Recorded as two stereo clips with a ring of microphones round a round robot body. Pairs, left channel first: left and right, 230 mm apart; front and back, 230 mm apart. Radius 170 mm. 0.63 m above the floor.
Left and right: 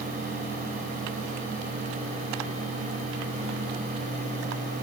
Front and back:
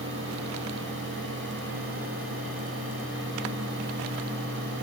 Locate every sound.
Only background noise.